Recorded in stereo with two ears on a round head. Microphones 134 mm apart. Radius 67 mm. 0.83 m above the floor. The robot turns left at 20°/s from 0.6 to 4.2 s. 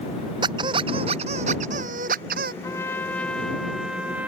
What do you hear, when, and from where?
0.4 s a squeak: 30° right; by 2.5 s 70° right
2.6 s a trumpet: 20° left; by 4.3 s 10° right